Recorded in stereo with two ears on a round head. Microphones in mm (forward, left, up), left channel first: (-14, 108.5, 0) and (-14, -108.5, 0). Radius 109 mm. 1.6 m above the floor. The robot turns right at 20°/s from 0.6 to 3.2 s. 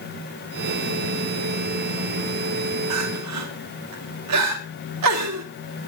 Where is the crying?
70° right (ahead or behind), 2.5 m; by 5.5 s 75° right (ahead or behind), 2.5 m.